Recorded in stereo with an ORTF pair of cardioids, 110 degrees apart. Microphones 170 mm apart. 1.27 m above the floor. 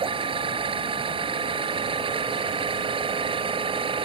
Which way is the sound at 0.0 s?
30° right.